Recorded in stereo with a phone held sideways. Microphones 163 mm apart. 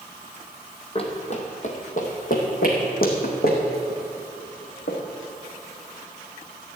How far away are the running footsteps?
About 2 m.